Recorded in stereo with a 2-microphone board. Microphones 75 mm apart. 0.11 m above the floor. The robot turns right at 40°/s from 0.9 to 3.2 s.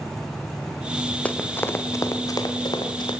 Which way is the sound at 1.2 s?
20° left (ahead or behind).